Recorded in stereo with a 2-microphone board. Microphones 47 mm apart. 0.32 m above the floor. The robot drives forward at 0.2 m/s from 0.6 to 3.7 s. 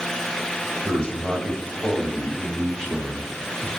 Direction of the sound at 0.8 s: 20° left (ahead or behind).